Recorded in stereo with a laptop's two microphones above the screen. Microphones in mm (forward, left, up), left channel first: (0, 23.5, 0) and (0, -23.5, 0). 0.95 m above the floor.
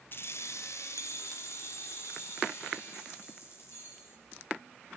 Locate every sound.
0.1 s keys jangling: 45° left (ahead or behind), 0.6 m; by 4.2 s 65° left (ahead or behind), 4.5 m